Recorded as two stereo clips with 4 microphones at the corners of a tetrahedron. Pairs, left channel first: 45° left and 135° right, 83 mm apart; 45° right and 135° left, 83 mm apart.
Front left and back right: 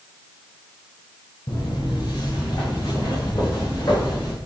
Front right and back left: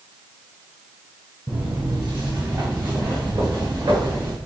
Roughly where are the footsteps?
Left.